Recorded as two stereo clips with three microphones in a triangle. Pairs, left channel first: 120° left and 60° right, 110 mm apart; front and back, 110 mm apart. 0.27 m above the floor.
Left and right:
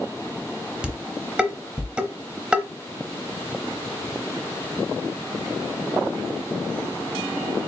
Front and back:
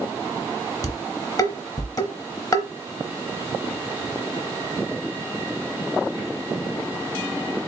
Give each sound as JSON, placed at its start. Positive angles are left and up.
{"t": 0.8, "sound": "dishes clattering", "azimuth_deg": 15, "distance_m": 0.8}